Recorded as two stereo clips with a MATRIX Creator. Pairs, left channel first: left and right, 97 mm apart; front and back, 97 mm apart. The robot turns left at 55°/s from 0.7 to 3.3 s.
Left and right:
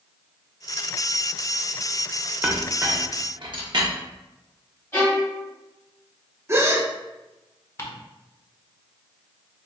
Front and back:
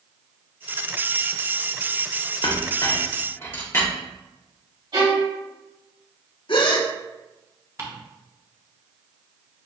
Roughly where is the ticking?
Behind left.